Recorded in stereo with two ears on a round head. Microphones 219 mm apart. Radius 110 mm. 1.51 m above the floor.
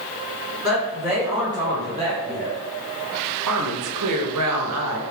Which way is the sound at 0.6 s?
10° right (ahead or behind).